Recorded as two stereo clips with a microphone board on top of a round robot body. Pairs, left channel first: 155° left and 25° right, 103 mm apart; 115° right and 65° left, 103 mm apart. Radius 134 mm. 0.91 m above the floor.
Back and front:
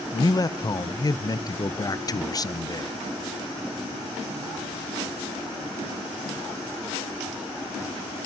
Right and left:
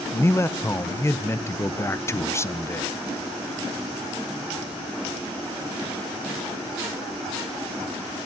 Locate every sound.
0.1 s a man speaking: 165° right, 0.9 m